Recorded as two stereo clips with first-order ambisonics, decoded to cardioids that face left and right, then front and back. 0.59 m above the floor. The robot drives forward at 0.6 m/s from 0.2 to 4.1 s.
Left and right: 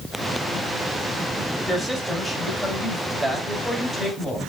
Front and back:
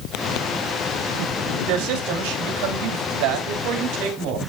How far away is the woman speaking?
About 2.5 m.